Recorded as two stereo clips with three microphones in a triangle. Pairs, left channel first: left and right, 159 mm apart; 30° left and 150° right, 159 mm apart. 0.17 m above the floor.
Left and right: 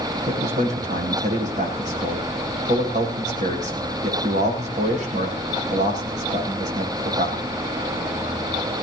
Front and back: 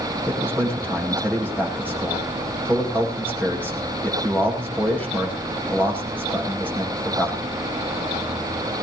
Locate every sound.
0.3 s a man speaking: 50° right, 7.5 m